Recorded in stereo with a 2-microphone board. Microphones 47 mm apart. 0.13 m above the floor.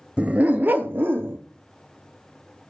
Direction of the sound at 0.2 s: 25° right (ahead or behind).